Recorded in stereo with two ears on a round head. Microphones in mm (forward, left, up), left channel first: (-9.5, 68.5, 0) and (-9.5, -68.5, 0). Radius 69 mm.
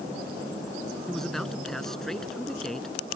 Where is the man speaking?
5° left (ahead or behind).